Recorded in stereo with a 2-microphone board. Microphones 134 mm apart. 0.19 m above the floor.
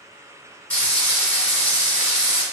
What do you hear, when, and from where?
0.7 s frying: 10° left (ahead or behind), 1.8 m